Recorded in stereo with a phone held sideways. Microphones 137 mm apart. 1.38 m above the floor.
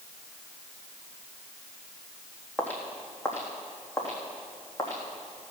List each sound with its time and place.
2.6 s footsteps: 10° left (ahead or behind), 2.5 m; by 5.5 s 30° left (ahead or behind), 4 m